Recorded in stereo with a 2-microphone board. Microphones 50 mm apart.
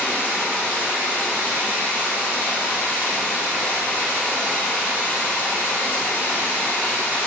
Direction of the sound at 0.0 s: 40° left (ahead or behind).